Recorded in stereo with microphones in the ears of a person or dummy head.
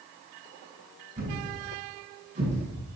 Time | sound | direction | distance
1.2 | a thud | 40° right (ahead or behind) | 6.5 m